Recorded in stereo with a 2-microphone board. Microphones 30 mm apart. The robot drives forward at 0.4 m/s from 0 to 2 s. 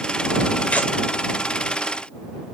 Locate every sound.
0.7 s tearing paper: 45° left (ahead or behind), 1.1 m; by 0.9 s 50° left (ahead or behind), 1.1 m